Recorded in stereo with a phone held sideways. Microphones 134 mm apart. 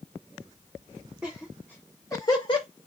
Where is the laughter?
5° right (ahead or behind), 1.3 m; by 2.7 s 40° left (ahead or behind), 1.1 m.